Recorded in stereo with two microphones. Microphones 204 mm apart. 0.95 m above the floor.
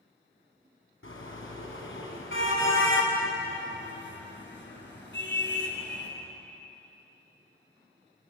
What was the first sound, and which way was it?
A car horn, 80° left.